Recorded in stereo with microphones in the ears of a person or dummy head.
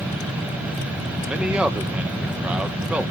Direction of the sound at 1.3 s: 5° right (ahead or behind).